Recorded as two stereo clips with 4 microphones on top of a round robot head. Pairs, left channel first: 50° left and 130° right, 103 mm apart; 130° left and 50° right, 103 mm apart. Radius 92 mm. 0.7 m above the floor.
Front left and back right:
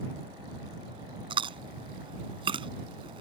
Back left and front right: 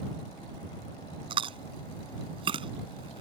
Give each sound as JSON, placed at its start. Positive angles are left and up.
{"t": 1.3, "sound": "chewing", "azimuth_deg": -90}